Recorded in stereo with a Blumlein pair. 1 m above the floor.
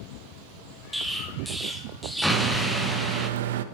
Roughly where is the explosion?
Ahead.